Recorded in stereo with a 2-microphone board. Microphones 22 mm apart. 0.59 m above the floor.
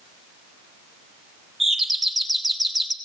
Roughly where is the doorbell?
Centre.